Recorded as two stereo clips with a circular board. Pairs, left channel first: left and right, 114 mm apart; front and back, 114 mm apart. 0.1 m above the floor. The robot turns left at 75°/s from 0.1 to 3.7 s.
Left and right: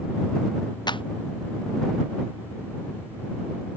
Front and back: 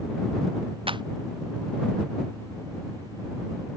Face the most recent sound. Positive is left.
turn(degrees=-70)